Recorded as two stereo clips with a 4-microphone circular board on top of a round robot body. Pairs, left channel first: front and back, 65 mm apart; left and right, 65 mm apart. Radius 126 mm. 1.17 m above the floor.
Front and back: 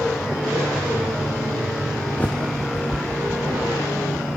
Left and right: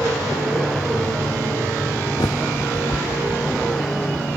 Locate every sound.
2.2 s a bird: 65° left, 0.6 m